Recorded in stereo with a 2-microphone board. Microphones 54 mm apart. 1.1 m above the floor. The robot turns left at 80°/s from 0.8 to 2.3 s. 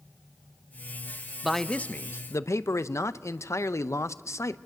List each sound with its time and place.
1.4 s a man speaking: 175° right, 0.6 m; by 4.6 s 115° left, 0.6 m